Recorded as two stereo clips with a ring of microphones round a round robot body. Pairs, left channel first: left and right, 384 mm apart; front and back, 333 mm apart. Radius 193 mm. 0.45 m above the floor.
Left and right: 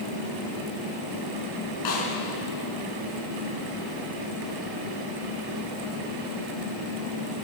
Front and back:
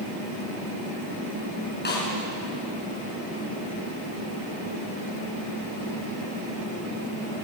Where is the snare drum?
60° left, 7 m.